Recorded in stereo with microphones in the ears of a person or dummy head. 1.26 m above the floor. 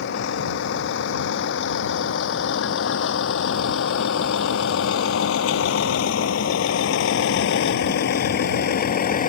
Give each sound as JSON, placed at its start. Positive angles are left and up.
{"t": 0.0, "sound": "a vehicle", "side_deg": 65}